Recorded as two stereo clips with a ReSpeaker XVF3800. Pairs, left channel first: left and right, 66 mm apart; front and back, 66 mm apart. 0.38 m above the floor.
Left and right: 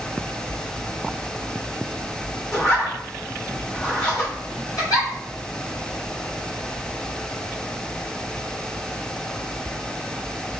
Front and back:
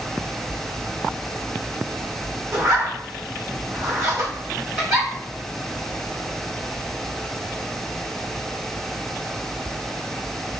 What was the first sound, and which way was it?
A zipper, 140° left.